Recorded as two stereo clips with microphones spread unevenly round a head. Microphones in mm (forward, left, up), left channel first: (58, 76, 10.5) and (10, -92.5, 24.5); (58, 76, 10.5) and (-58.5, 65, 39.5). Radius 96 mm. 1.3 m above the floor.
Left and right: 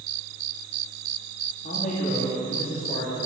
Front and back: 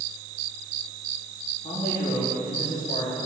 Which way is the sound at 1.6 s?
25° left.